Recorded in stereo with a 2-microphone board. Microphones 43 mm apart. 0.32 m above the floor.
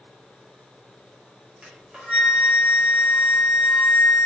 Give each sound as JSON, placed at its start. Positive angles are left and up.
{"t": 1.6, "sound": "a flute", "side_deg": -25, "distance_m": 1.2}